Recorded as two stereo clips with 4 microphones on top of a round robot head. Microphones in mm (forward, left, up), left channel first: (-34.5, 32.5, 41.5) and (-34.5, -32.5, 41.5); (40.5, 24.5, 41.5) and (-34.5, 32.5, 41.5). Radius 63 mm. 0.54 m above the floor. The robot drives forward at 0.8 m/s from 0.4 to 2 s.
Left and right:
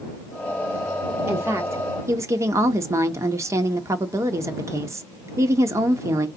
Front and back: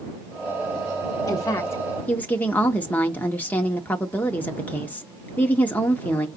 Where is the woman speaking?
40° right, 1.3 m; by 6.3 s 70° right, 1.0 m.